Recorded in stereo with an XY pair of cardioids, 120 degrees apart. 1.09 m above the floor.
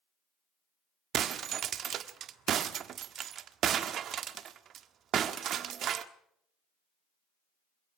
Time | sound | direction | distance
1.1 | breaking glass | 55° right | 1.4 m